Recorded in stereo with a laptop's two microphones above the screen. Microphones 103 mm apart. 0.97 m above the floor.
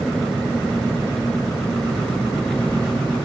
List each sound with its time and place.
0.0 s an engine running: 5° left (ahead or behind)